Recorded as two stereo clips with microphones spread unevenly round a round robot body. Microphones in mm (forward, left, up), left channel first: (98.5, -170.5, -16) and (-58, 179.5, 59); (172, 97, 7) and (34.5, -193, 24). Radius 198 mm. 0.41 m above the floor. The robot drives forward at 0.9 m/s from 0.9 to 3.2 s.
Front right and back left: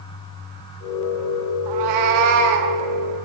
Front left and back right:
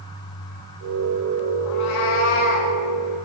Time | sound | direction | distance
1.7 | a cat meowing | 85° left | 0.9 m